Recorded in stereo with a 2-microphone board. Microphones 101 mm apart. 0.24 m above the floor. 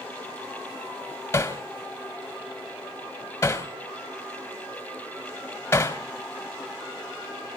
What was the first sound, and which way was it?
Hammering, 25° left (ahead or behind).